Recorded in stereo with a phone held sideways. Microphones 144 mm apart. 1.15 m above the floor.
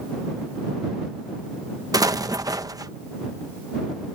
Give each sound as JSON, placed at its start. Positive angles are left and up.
{"t": 1.9, "sound": "an explosion", "side_deg": -25}